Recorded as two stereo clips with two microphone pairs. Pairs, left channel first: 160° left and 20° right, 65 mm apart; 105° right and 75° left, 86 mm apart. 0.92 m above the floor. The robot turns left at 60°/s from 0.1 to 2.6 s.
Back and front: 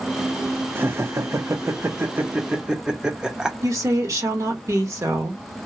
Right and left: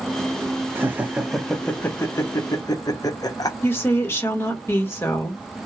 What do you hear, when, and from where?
0.8 s laughter: 25° left, 0.8 m; by 3.5 s 85° right, 0.8 m
3.6 s a woman speaking: 45° right, 1.4 m